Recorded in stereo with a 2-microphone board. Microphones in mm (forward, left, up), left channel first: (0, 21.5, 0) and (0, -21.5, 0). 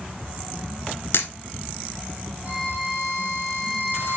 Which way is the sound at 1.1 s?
70° left (ahead or behind).